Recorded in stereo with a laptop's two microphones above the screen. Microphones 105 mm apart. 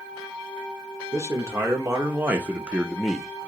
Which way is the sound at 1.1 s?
30° right (ahead or behind).